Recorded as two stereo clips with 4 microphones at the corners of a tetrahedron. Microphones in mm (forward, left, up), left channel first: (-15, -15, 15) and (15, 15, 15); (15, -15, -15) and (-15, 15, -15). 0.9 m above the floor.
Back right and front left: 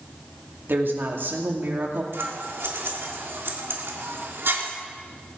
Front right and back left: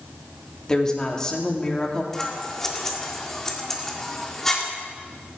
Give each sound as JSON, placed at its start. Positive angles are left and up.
{"t": 0.7, "sound": "a woman speaking", "azimuth_deg": 25, "distance_m": 2.0}
{"t": 2.1, "sound": "scissors", "azimuth_deg": 35, "distance_m": 1.8}